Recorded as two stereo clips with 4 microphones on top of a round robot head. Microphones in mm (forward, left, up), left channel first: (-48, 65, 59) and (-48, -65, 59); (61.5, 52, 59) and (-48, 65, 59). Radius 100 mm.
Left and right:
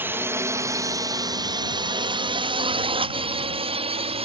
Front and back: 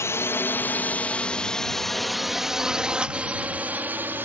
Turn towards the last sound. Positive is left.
turn(degrees=-115)